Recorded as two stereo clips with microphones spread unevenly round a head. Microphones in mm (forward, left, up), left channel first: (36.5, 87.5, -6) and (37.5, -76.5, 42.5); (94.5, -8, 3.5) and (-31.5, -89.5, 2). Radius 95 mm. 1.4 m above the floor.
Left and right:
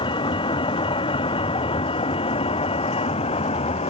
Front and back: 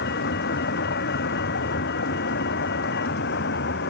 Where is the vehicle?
30° left; by 3.9 s 35° left.